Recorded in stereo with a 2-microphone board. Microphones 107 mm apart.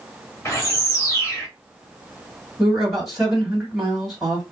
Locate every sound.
0.5 s a bird: 25° left (ahead or behind), 1.0 m
2.6 s a man speaking: centre (ahead or behind), 1.8 m